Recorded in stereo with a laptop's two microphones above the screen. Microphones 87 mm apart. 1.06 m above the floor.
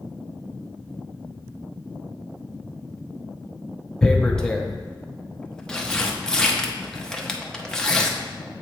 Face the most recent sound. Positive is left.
turn(degrees=5)  # may be behind; listen again after turning